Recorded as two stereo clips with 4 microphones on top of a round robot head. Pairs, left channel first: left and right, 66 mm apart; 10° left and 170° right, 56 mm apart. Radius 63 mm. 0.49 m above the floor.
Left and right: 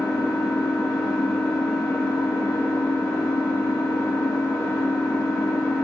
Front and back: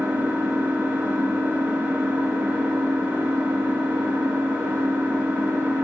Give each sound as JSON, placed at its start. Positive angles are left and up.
{"t": 0.0, "sound": "an engine running", "azimuth_deg": 130, "distance_m": 1.9}